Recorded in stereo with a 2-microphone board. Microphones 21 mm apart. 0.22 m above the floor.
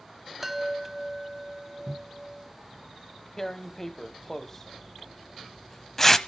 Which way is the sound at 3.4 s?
20° left (ahead or behind).